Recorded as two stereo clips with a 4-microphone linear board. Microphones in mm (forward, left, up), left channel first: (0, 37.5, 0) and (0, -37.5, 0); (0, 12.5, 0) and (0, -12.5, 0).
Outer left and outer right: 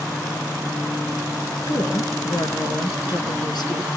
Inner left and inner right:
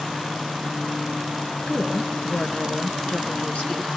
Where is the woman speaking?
75° left (ahead or behind), 4.5 m; by 4.0 s 70° left (ahead or behind), 4.5 m.